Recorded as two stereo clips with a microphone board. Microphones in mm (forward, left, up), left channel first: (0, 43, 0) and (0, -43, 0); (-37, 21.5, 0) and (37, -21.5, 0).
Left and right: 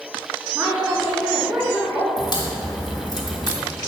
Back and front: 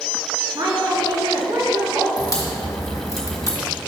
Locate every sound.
0.6 s a woman speaking: 25° right, 2 m
2.2 s a crack: 105° left, 2 m